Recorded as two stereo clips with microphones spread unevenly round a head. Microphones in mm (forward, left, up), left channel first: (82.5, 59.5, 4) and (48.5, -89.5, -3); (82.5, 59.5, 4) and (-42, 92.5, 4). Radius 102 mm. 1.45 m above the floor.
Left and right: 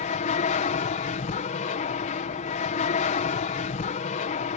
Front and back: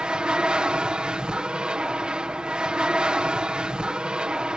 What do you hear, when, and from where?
0.0 s an aircraft: 85° left